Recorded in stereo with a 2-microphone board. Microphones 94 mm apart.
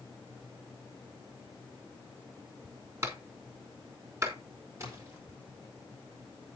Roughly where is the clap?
Right.